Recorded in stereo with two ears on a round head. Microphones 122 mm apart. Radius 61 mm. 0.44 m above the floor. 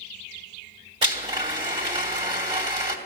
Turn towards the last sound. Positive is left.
turn(degrees=-40)  # may be behind; listen again after turning